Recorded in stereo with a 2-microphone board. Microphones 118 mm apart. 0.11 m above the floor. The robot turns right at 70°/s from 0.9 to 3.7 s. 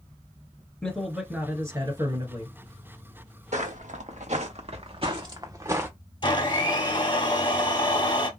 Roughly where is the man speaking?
Behind.